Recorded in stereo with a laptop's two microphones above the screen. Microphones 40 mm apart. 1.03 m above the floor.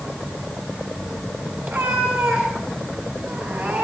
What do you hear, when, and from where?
1.6 s a cat meowing: 80° right, 6.5 m; by 3.8 s 70° right (ahead or behind), 6 m